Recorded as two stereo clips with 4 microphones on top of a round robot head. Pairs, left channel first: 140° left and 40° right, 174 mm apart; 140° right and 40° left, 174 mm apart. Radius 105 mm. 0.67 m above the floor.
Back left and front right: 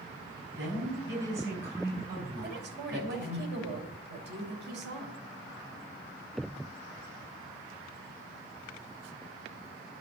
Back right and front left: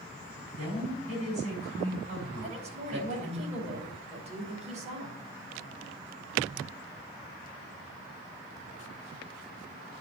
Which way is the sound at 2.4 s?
15° right.